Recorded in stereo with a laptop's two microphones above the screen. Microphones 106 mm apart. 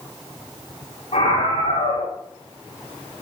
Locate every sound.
1.1 s a scream: 85° left, 8.5 m